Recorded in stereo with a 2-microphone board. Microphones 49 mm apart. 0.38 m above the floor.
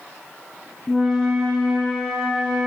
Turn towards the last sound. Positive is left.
turn(degrees=10)  # may be behind; listen again after turning